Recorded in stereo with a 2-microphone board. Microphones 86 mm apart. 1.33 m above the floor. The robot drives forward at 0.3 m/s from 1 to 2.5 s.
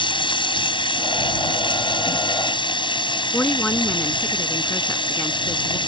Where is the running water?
75° left (ahead or behind).